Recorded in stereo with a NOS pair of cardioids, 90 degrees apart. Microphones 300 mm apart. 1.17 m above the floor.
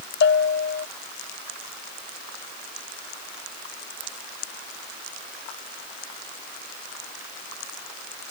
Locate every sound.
0.2 s a bell: 40° left